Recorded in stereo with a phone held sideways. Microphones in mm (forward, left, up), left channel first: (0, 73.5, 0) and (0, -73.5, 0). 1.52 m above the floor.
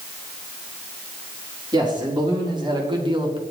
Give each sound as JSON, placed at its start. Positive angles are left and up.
{"t": 1.7, "sound": "a man speaking", "side_deg": -30, "distance_m": 3.5}